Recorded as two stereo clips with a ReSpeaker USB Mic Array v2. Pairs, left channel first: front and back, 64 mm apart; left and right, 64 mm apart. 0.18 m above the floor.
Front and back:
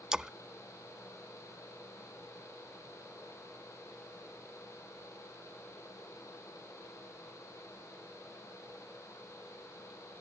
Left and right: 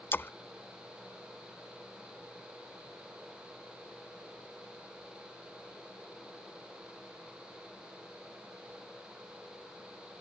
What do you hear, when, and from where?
0.1 s a splash: 110° left